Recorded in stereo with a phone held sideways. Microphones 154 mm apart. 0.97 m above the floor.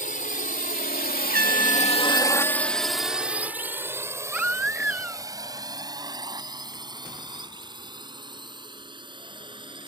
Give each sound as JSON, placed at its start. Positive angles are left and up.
{"t": 0.0, "sound": "a drone", "side_deg": 55}
{"t": 1.3, "sound": "a trumpet", "side_deg": -70}
{"t": 4.3, "sound": "a baby crying", "side_deg": -10}